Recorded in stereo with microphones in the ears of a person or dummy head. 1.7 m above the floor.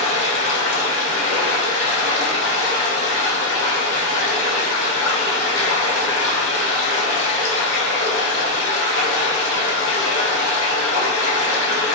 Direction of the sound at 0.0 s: 70° left (ahead or behind).